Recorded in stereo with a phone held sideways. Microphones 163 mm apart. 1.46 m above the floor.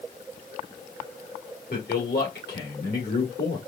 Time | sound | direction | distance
1.7 | a man speaking | 80° left | 2.0 m